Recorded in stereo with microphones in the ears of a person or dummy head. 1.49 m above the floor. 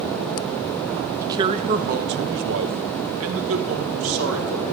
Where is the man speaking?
15° right (ahead or behind), 0.6 m; by 4.6 s 85° right, 2 m.